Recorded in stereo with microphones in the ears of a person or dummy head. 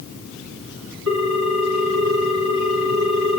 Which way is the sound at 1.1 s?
70° right (ahead or behind).